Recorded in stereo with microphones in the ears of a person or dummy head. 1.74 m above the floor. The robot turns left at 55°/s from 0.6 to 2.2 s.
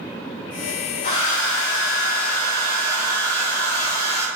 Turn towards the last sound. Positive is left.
turn(degrees=10)  # may be behind; listen again after turning